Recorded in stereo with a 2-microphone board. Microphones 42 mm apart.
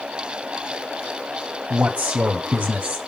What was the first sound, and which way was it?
A man speaking, 35° right (ahead or behind).